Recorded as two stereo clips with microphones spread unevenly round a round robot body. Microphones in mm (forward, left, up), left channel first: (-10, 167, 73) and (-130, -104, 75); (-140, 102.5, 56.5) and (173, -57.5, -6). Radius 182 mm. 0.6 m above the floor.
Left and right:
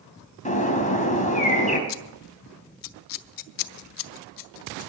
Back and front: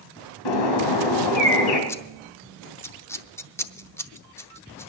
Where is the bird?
130° left, 3 m.